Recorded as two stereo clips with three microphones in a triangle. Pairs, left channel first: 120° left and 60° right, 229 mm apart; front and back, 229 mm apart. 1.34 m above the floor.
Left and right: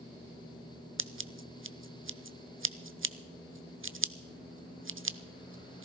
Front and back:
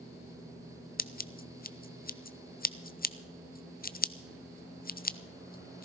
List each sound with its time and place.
1.0 s scissors: 45° right, 0.6 m